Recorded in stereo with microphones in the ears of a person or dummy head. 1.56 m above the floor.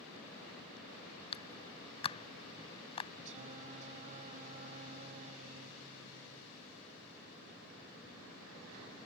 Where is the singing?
40° right (ahead or behind).